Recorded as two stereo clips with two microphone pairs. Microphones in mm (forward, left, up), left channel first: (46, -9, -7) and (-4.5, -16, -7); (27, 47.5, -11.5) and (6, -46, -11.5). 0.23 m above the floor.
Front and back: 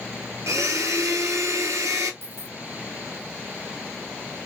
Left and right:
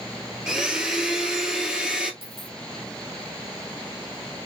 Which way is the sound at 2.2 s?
135° right.